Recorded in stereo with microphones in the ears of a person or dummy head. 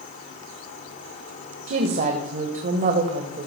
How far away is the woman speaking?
About 1.4 m.